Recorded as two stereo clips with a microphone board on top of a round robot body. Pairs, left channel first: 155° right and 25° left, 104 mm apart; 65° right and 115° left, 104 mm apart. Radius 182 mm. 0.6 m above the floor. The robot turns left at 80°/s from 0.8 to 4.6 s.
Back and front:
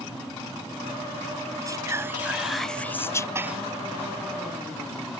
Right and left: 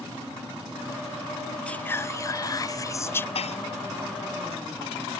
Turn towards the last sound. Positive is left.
turn(degrees=-140)